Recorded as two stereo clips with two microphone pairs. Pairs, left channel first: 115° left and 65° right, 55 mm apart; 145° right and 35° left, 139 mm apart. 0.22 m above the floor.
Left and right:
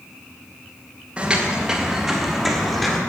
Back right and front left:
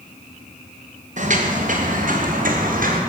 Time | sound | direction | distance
1.2 | footsteps | 10° left | 3.5 m